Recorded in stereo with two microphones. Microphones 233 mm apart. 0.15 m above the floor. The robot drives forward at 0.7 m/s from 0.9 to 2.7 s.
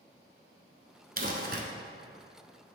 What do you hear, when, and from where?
1.2 s crumpling: 40° right (ahead or behind), 1.0 m; by 1.6 s 45° right (ahead or behind), 0.9 m